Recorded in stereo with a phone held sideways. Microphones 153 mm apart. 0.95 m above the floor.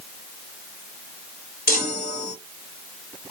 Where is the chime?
80° left, 1.9 m.